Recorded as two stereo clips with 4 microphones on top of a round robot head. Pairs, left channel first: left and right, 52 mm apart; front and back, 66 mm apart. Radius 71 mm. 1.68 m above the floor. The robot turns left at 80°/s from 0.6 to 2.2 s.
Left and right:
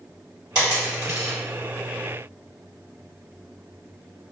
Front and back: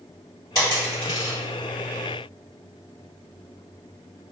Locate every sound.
0.6 s a dropped coin: 55° right, 1.7 m; by 1.4 s 115° right, 1.7 m